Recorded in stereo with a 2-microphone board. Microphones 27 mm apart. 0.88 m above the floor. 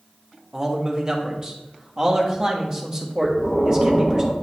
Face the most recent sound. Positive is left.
turn(degrees=30)  # may be behind; listen again after turning